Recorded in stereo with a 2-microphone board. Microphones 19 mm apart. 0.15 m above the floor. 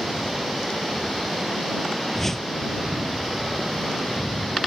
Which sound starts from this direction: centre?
A whoosh, at 2.1 s.